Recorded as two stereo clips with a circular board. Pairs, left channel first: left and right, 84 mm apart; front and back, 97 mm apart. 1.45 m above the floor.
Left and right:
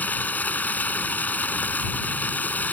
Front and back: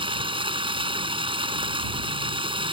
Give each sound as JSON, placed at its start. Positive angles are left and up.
{"t": 0.0, "sound": "running water", "azimuth_deg": 160}